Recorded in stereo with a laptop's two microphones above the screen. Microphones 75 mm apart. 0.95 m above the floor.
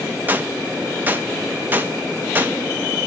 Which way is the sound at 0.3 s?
25° right (ahead or behind).